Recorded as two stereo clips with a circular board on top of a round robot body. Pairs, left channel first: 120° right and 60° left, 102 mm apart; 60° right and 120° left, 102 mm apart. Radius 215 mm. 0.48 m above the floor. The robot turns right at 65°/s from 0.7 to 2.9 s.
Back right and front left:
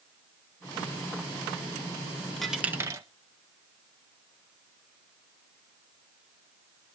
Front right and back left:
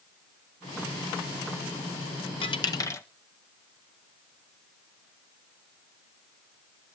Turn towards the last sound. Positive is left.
turn(degrees=0)